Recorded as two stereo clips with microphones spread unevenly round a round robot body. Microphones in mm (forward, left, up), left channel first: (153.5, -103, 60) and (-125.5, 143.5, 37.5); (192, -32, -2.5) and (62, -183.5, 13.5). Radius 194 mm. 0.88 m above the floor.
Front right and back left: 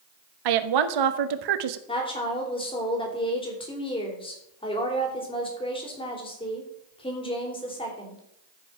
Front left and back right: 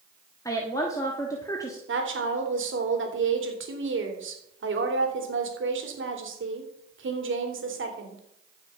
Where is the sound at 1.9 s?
120° right, 3 m.